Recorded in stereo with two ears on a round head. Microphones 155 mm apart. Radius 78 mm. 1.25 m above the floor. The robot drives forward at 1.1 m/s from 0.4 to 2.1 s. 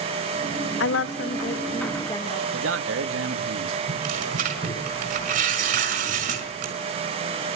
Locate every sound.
0.8 s a woman speaking: 70° left (ahead or behind), 0.5 m; by 2.4 s 20° left (ahead or behind), 1.3 m
2.5 s a man speaking: 85° right, 1.8 m
3.9 s tearing paper: 50° right (ahead or behind), 5.5 m